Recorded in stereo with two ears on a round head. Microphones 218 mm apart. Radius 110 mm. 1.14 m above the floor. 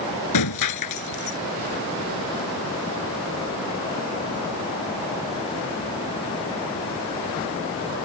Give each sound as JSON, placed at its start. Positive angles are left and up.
{"t": 0.3, "sound": "breaking glass", "side_deg": 80}